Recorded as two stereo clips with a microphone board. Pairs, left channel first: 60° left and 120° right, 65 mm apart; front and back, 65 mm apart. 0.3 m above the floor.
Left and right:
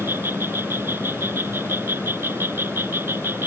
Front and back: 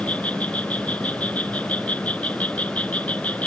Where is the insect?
65° right.